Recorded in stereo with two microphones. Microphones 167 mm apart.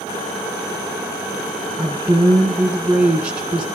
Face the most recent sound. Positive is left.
turn(degrees=-5)  # may be behind; listen again after turning